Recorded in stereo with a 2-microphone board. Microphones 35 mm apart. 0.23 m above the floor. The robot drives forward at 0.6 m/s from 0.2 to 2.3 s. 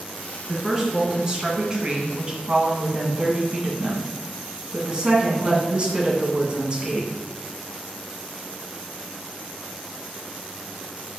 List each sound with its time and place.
0.5 s a woman speaking: 20° right (ahead or behind), 2.5 m; by 7.1 s 30° right (ahead or behind), 1.9 m